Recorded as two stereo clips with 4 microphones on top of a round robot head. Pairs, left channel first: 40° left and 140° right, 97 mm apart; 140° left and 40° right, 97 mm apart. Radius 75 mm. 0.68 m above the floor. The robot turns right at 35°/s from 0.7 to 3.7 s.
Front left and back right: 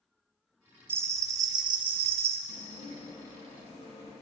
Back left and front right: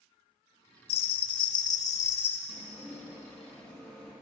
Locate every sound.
0.9 s a bell: 155° left, 0.5 m; by 2.4 s 150° right, 0.5 m
2.5 s dishes clattering: 20° left, 6 m; by 4.1 s 60° left, 6 m